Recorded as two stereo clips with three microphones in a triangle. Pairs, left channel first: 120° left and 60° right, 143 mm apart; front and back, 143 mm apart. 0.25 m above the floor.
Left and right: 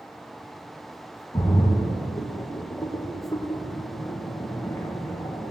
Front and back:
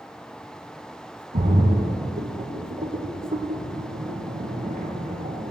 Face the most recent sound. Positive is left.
turn(degrees=-175)